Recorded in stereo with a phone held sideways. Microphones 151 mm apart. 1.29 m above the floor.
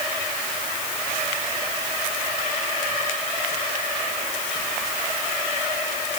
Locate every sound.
Only background noise.